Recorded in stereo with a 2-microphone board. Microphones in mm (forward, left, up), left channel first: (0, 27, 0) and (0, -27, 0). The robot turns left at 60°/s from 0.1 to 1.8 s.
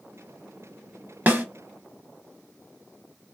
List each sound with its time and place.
1.3 s a snare drum: 35° right (ahead or behind), 0.6 m; by 1.4 s 30° right (ahead or behind), 0.6 m